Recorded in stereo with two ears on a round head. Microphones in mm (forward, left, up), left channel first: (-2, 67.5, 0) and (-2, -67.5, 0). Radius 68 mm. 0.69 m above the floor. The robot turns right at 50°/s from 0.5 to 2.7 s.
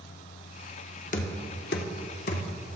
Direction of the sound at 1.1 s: 50° left (ahead or behind).